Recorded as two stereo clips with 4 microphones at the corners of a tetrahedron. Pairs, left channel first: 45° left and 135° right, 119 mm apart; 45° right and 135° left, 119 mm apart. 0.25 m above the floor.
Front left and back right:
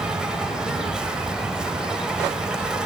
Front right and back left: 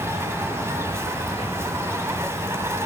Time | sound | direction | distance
0.0 | an insect | 150° left | 1.0 m